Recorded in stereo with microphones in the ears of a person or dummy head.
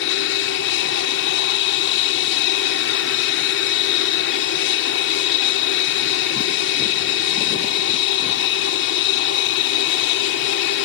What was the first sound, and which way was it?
An aircraft, 65° left (ahead or behind).